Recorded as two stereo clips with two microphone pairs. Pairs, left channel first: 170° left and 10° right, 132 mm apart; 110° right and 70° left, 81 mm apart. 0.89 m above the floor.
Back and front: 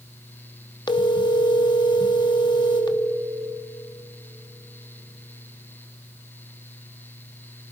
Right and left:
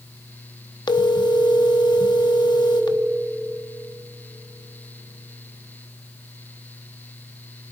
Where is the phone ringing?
135° right, 1.1 m.